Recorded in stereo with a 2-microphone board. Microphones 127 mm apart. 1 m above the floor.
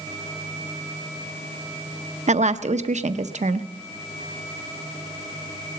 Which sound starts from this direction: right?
A woman speaking, at 2.3 s.